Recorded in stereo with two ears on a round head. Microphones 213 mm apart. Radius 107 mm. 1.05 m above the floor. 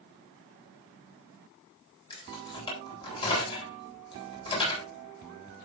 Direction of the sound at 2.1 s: 20° left (ahead or behind).